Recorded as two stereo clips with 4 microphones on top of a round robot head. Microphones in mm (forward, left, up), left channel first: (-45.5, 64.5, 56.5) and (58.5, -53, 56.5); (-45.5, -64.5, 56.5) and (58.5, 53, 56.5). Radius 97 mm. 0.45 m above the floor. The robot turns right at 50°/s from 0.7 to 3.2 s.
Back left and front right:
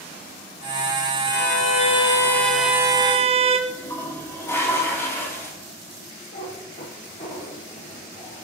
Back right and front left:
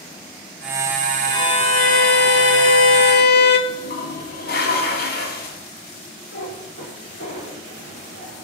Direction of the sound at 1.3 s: 160° left.